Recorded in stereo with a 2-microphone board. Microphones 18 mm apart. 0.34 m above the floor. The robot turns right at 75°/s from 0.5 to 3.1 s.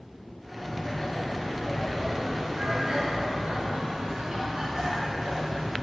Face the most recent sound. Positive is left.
turn(degrees=-110)